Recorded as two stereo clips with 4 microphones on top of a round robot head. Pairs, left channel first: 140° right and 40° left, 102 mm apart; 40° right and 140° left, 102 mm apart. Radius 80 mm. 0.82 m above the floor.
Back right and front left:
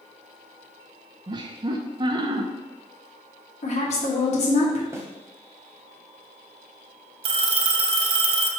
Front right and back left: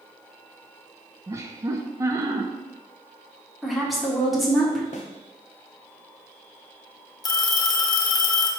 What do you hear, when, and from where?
1.3 s laughter: 80° left, 0.6 m
3.6 s a woman speaking: 130° right, 1.8 m
4.9 s a snare drum: 20° right, 0.8 m
7.2 s a phone ringing: 10° left, 0.8 m